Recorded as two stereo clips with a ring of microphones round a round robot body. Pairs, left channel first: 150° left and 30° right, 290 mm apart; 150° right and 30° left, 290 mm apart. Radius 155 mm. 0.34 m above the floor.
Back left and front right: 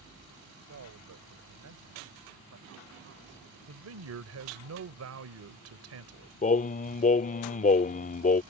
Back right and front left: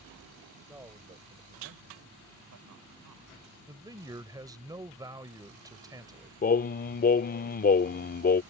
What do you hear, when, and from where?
0.7 s a man speaking: 55° right; by 3.6 s 20° left
3.7 s a man speaking: 45° right
6.4 s singing: 175° right